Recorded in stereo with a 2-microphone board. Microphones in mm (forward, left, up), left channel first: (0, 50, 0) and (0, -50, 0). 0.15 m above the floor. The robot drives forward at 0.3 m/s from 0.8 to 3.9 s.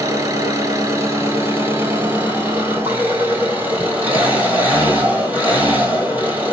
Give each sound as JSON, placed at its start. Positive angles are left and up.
{"t": 0.0, "sound": "an engine running", "side_deg": -40, "distance_m": 0.9}